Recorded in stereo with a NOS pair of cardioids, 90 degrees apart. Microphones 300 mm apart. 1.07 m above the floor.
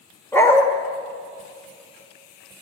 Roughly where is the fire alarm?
I don't hear a fire alarm.